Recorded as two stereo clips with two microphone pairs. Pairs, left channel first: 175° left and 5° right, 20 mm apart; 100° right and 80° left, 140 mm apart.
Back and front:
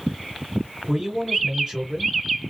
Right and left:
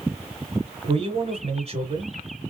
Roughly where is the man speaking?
Ahead left.